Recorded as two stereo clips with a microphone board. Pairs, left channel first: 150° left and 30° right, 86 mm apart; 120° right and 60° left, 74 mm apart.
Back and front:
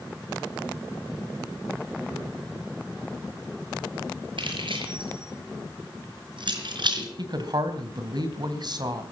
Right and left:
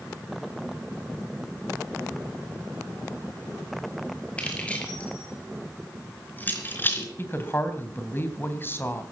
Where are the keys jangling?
45° right, 6 m; by 7.1 s 60° right, 4 m.